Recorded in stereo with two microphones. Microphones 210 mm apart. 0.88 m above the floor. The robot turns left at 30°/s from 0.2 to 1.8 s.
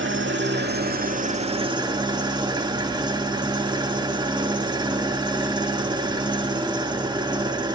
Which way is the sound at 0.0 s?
110° right.